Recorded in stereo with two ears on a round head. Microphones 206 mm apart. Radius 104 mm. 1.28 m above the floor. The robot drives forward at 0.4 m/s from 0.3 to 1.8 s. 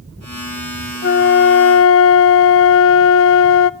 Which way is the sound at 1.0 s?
45° left (ahead or behind).